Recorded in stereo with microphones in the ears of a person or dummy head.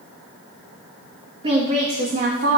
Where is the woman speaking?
30° right (ahead or behind), 1.5 m; by 2.6 s 60° right (ahead or behind), 1.6 m.